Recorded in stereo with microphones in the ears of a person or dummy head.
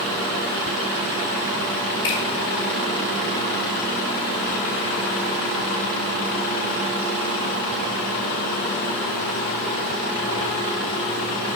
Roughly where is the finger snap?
Left.